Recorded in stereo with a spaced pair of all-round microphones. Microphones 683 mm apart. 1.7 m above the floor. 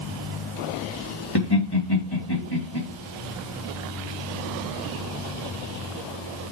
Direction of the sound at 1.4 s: 35° left (ahead or behind).